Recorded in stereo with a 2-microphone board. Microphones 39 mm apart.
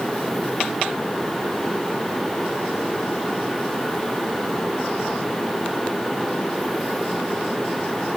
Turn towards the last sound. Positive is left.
No sound to turn to.